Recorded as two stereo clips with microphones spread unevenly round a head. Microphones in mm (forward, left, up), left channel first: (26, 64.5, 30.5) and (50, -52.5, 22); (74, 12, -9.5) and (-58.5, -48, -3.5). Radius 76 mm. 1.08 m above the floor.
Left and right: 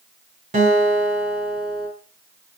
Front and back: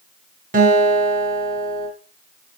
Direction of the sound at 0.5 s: 125° right.